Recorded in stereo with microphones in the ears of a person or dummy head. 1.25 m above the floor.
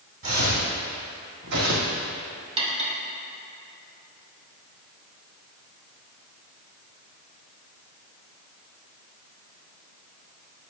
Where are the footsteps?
40° right (ahead or behind), 2.5 m; by 2.0 s 60° right (ahead or behind), 2.5 m.